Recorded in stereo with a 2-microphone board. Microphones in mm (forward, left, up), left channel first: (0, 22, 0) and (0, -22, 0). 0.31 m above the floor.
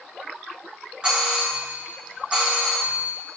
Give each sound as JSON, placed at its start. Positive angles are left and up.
{"t": 1.0, "sound": "a doorbell", "side_deg": -15, "distance_m": 1.4}